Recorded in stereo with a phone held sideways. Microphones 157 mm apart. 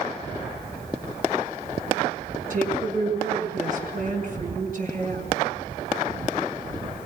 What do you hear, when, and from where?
2.5 s a woman speaking: 55° right (ahead or behind), 6 m